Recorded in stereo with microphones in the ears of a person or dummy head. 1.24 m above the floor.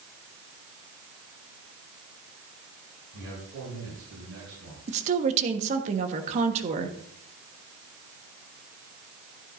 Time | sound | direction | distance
3.1 | a man speaking | 70° right (ahead or behind) | 7 m
4.9 | a woman speaking | 40° right (ahead or behind) | 1.3 m